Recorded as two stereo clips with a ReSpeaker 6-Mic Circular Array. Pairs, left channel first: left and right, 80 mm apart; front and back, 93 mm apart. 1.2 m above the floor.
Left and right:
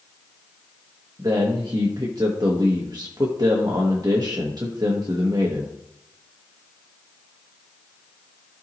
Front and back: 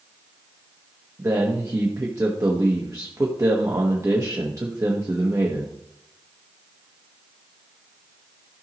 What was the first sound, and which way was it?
A man speaking, 125° right.